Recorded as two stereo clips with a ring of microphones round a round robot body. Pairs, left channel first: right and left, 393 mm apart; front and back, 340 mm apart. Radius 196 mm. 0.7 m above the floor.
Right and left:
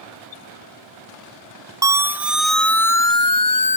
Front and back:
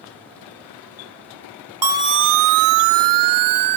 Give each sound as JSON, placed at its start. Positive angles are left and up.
{"t": 1.8, "sound": "a siren", "azimuth_deg": 170}